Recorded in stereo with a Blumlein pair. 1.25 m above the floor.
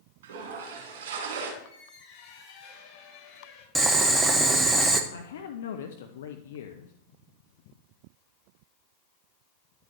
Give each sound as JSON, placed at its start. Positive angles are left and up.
{"t": 0.2, "sound": "a toilet flushing", "azimuth_deg": -55, "distance_m": 3.0}
{"t": 1.6, "sound": "a squeak", "azimuth_deg": 35, "distance_m": 4.5}
{"t": 3.8, "sound": "boiling", "azimuth_deg": -10, "distance_m": 1.0}
{"t": 5.1, "sound": "a man speaking", "azimuth_deg": 60, "distance_m": 0.7}